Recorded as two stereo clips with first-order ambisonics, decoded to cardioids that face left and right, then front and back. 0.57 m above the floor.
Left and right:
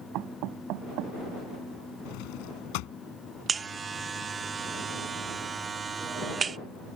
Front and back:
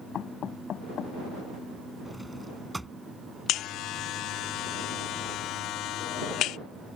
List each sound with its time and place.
0.1 s knocking: 55° right
2.0 s a drawer: 95° left
3.5 s a buzzer: 25° right